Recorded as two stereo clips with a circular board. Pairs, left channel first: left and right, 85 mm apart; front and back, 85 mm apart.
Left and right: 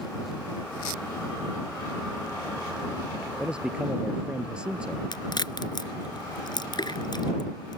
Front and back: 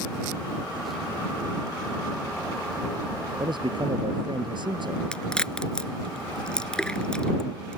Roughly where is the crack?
Left.